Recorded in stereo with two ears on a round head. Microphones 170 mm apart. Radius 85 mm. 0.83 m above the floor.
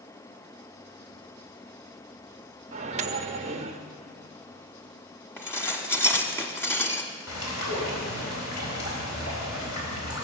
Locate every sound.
2.7 s a microwave: 35° right (ahead or behind), 0.9 m
5.4 s dishes clattering: 15° left (ahead or behind), 1.1 m
7.3 s a bird: 80° left, 4.5 m